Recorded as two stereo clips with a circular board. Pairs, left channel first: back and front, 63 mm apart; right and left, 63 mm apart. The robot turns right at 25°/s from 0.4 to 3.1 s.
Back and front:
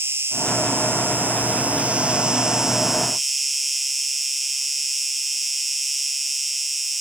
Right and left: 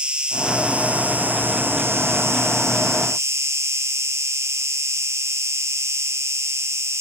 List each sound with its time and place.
0.0 s an insect: 20° left, 1.3 m; by 7.0 s 90° left, 1.3 m